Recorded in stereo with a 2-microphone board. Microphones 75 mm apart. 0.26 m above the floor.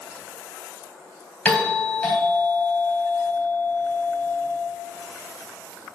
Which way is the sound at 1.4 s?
15° left (ahead or behind).